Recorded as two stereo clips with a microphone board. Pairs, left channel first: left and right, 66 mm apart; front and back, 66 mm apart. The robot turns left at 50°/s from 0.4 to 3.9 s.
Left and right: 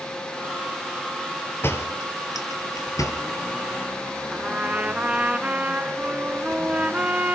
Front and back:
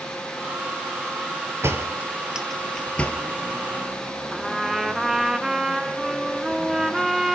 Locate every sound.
1.6 s a door slam: 135° left, 2.5 m; by 3.2 s 60° left, 2.5 m
4.3 s a trumpet: 105° right, 1.0 m